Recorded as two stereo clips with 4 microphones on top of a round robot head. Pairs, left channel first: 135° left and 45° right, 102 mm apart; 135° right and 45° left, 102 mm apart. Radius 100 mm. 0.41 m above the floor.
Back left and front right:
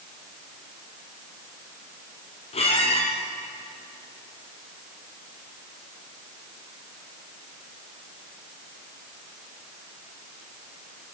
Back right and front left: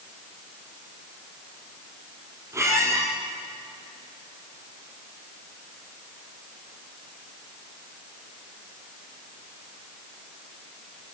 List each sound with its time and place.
2.5 s a squeak: 110° left, 4 m